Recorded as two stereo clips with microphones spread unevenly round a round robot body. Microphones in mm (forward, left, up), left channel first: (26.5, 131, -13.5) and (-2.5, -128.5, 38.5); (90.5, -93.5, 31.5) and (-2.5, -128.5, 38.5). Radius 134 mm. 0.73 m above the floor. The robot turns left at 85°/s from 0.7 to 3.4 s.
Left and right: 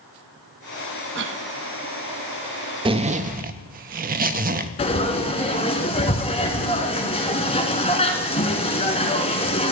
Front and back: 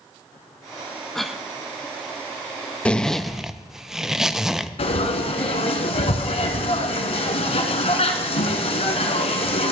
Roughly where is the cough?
Ahead right.